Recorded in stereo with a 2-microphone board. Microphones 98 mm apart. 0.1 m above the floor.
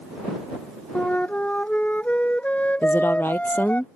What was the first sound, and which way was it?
A flute, 15° left (ahead or behind).